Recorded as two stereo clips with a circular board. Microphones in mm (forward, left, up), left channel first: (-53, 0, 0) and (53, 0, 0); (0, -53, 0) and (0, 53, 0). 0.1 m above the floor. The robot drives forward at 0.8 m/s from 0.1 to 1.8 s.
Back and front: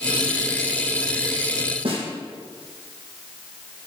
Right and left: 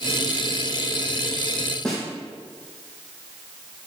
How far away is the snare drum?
About 4.5 m.